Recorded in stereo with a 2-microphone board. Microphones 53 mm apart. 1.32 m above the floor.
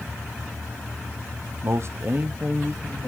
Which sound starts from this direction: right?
A man speaking, at 1.6 s.